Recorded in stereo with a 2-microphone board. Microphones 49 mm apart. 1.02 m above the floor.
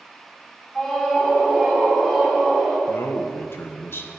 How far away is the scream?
About 2.5 m.